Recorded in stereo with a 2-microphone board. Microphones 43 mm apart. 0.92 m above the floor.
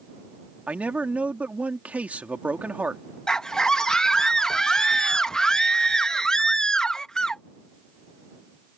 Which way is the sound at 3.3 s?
15° left (ahead or behind).